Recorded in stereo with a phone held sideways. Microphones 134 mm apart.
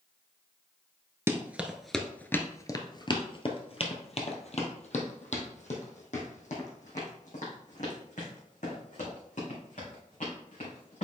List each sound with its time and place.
1.3 s running footsteps: 20° right (ahead or behind), 0.9 m; by 11.1 s 70° left (ahead or behind), 5 m